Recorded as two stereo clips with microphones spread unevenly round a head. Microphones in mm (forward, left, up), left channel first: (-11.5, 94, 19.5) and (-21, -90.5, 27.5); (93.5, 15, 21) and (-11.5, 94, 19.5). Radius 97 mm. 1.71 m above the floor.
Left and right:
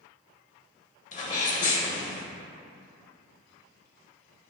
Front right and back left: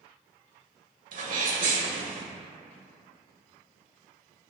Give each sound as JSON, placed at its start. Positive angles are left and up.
{"t": 1.1, "sound": "a sneeze", "azimuth_deg": 135, "distance_m": 1.4}